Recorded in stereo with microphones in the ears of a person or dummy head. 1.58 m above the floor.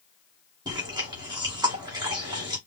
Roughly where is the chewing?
Right.